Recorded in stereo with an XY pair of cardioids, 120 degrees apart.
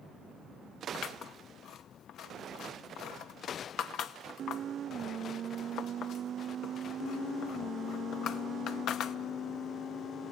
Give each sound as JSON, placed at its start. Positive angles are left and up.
{"t": 0.9, "sound": "scissors", "azimuth_deg": 65, "distance_m": 0.9}